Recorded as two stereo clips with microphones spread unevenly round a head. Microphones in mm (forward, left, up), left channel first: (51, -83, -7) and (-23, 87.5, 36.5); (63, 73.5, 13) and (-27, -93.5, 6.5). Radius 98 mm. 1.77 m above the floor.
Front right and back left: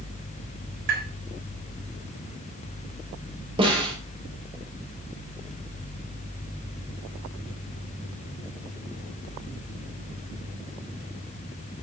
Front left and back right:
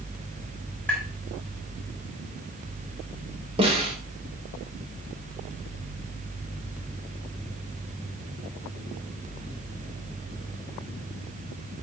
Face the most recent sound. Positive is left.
turn(degrees=175)